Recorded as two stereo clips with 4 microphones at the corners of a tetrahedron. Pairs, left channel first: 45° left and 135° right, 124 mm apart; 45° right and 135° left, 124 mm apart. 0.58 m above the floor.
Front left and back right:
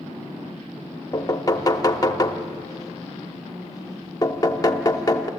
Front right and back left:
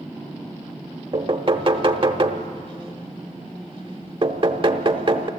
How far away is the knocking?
About 0.9 m.